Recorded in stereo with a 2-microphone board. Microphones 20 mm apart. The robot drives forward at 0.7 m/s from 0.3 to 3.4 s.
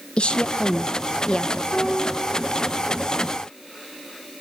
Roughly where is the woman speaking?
Left.